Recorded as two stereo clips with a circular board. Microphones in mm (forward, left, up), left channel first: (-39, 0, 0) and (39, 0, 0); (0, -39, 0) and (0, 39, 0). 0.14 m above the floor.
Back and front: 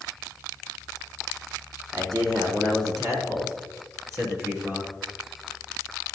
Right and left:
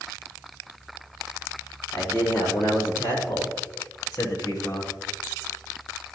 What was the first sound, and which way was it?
A man speaking, 30° right.